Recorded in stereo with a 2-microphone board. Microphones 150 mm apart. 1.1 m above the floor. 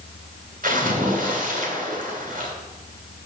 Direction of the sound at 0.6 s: 70° right (ahead or behind).